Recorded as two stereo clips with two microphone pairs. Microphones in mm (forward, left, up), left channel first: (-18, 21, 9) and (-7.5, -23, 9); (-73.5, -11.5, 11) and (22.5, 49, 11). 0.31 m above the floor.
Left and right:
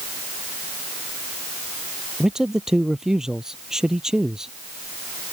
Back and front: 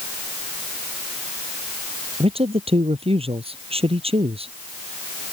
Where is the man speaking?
Straight ahead.